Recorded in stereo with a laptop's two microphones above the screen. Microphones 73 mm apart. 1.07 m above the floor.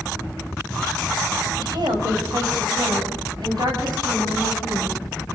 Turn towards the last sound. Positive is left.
turn(degrees=-75)  # may be behind; listen again after turning